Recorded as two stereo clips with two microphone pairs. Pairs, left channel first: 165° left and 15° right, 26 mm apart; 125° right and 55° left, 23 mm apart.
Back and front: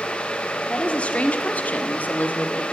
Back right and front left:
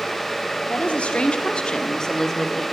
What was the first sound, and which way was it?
A woman speaking, 145° right.